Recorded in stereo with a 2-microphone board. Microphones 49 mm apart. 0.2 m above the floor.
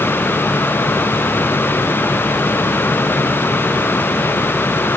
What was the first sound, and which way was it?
Only background noise.